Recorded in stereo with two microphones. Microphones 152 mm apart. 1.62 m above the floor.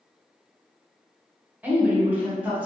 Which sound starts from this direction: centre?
A woman speaking, at 1.6 s.